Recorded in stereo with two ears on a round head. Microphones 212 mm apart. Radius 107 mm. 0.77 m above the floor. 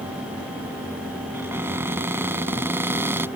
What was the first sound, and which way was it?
A cupboard door, 10° right (ahead or behind).